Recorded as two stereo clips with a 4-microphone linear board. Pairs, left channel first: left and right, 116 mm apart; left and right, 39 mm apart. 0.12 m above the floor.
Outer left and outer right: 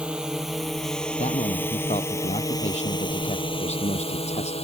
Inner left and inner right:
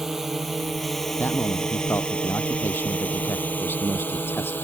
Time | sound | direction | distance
0.0 | a drone | 10° right (ahead or behind) | ?
1.2 | a man speaking | 70° left (ahead or behind) | ?